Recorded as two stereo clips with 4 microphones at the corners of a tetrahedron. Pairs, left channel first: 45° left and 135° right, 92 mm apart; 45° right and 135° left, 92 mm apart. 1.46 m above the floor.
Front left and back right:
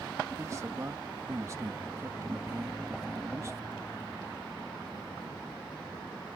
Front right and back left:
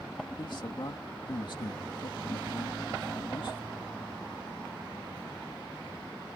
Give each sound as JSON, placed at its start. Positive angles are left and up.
{"t": 0.4, "sound": "a man speaking", "azimuth_deg": -80}